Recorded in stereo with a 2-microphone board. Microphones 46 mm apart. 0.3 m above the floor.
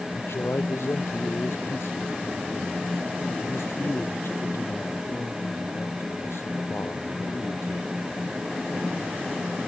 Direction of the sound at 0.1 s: 70° left (ahead or behind).